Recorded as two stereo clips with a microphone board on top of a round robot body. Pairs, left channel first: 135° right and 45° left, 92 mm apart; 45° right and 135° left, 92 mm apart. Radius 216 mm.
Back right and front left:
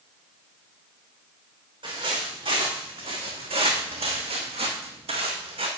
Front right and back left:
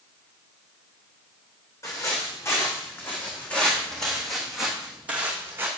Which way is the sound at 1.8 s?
10° left.